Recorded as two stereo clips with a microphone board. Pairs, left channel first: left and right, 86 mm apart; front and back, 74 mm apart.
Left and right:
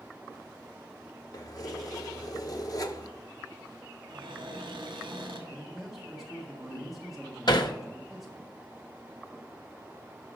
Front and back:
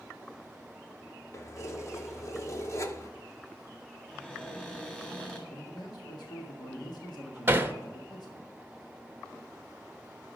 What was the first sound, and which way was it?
Keys jangling, 45° left.